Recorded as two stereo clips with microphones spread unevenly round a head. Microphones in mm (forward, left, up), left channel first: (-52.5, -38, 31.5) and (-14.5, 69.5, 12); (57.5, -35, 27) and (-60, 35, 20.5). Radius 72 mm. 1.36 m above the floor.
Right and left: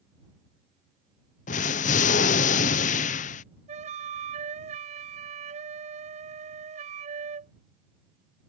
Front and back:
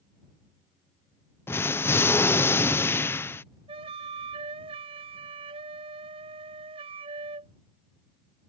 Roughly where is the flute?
Left.